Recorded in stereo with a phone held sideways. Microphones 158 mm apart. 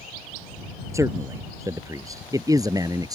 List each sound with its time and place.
0.9 s a man speaking: 20° right (ahead or behind); by 3.2 s 25° right (ahead or behind)